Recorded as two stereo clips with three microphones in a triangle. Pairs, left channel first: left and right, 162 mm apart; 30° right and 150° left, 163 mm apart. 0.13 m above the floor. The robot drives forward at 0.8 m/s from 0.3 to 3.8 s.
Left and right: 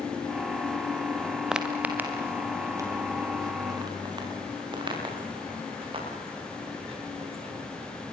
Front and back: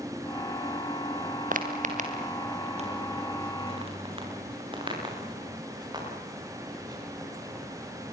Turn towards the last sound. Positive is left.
turn(degrees=-140)